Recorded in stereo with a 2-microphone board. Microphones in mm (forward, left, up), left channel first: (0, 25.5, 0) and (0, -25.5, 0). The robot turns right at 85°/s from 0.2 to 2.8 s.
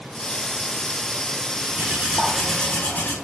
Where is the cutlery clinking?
60° right, 5 m; by 3.1 s 35° left, 5 m.